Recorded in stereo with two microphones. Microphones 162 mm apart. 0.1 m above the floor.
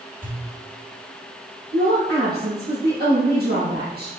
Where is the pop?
50° right (ahead or behind), 2.5 m.